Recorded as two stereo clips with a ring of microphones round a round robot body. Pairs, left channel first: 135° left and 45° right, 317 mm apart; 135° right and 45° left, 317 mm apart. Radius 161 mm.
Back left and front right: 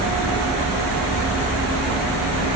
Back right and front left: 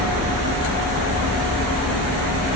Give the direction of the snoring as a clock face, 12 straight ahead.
No snoring in this recording.